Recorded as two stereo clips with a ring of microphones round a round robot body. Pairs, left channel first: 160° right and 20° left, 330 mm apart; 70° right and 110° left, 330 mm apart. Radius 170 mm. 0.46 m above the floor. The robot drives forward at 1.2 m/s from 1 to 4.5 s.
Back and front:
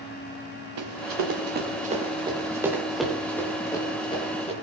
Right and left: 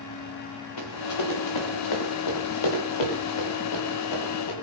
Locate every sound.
0.8 s running footsteps: 25° right, 2.5 m; by 4.5 s 85° right, 4.5 m